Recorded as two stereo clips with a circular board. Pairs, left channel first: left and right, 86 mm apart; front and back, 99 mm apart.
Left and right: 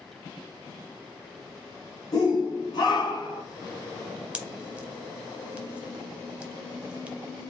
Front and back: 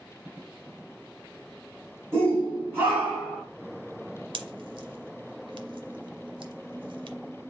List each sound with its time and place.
2.1 s a shout: 125° left, 2.5 m; by 3.4 s 105° left, 2.5 m
4.3 s a pop: 165° right, 0.7 m